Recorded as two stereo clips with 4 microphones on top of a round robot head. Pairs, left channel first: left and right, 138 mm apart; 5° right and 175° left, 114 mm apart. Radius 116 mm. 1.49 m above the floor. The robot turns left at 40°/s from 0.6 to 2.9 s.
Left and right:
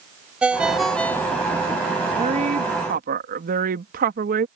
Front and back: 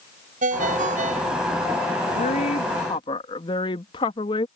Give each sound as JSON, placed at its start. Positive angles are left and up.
{"t": 0.4, "sound": "a ringtone", "azimuth_deg": -175}
{"t": 2.1, "sound": "a woman speaking", "azimuth_deg": -30}